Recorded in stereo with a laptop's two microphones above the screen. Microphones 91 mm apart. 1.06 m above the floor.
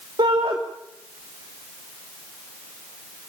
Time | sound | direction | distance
0.2 | a shout | 65° right (ahead or behind) | 2.5 m